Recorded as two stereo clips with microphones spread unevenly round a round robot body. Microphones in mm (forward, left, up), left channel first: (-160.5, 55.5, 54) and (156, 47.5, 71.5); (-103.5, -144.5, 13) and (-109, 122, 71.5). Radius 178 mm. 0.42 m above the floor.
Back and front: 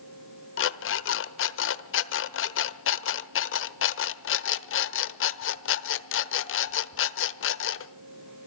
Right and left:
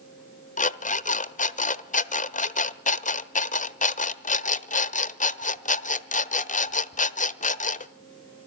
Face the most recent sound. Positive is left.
turn(degrees=-140)